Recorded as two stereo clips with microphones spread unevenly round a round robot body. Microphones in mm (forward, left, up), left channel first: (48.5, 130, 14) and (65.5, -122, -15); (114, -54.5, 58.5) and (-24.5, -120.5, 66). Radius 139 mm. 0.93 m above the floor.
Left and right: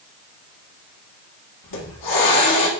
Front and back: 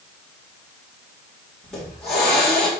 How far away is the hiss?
About 1.8 m.